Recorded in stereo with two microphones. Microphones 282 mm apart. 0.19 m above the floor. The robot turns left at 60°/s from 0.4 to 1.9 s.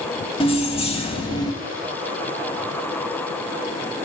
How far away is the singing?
I don't hear singing.